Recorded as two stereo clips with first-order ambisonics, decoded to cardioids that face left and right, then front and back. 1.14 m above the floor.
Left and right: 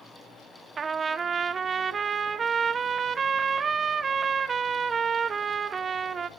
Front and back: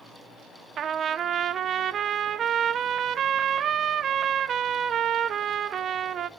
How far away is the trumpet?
About 0.7 m.